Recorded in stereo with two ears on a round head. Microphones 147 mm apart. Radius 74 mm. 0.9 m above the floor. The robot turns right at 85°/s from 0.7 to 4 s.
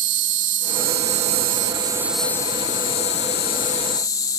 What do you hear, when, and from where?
0.0 s an insect: 125° right; by 4.4 s 155° left